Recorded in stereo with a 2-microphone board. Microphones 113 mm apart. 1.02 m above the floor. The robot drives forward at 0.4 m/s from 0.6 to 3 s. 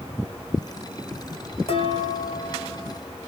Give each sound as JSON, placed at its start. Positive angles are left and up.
{"t": 1.7, "sound": "dishes clattering", "side_deg": 60, "distance_m": 2.5}